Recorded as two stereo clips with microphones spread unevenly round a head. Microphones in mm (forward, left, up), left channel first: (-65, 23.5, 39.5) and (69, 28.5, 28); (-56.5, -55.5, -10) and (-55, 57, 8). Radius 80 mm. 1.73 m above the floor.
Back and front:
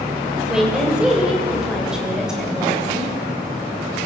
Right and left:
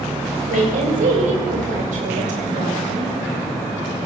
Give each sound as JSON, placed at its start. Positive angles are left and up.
{"t": 0.5, "sound": "a woman speaking", "azimuth_deg": 85, "distance_m": 7.0}